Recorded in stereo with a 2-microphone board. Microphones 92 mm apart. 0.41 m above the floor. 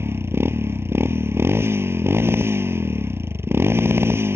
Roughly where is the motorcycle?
Right.